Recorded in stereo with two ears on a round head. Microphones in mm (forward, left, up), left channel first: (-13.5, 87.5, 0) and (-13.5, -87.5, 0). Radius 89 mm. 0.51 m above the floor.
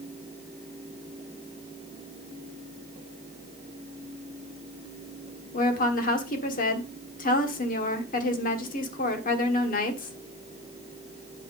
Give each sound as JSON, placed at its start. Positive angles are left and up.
{"t": 5.5, "sound": "a woman speaking", "side_deg": 40, "distance_m": 1.4}